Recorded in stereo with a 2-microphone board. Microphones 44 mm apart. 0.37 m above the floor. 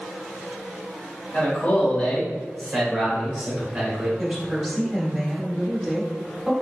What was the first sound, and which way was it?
A man speaking, 40° left (ahead or behind).